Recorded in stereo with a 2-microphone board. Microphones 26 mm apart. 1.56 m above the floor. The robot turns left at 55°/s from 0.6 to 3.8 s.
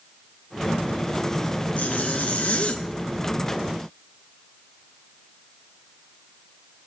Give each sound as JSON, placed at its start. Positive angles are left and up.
{"t": 1.8, "sound": "a zipper", "azimuth_deg": 115, "distance_m": 0.8}